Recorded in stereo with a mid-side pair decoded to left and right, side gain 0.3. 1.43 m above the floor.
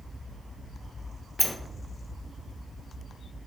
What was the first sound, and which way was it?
A sliding door, 15° left.